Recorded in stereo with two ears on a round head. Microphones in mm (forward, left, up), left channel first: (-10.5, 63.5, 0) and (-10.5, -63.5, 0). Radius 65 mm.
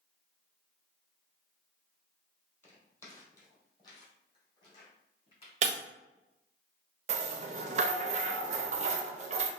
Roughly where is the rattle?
Right.